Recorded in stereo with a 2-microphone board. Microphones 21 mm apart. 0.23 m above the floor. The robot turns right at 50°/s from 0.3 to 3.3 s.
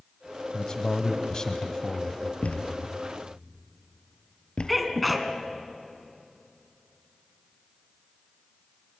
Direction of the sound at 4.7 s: Centre (ahead or behind).